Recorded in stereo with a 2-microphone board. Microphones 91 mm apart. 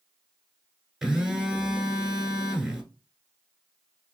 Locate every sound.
1.0 s a phone buzzing: 5° right (ahead or behind), 1.1 m